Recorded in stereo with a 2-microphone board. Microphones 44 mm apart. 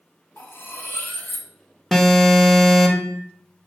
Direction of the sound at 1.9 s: Centre (ahead or behind).